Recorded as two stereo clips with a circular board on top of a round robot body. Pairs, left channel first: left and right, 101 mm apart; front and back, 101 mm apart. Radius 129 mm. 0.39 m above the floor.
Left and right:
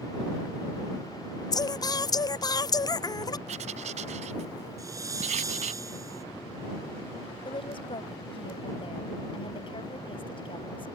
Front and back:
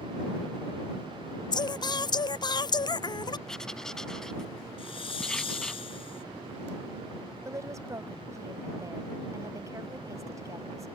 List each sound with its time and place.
1.5 s singing: 45° left
3.5 s writing: 85° right
4.8 s a hiss: 30° right
7.5 s a woman speaking: 120° left